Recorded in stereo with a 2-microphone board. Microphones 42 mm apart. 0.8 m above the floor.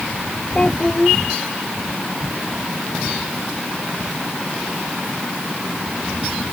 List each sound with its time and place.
0.6 s a child speaking: 25° left (ahead or behind)